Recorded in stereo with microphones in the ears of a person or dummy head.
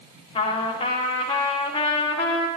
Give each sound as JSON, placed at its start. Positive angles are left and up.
{"t": 0.3, "sound": "a trumpet", "side_deg": 30, "distance_m": 1.4}